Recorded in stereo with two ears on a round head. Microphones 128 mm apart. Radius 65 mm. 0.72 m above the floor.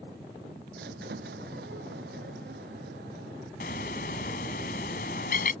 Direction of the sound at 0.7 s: 80° right.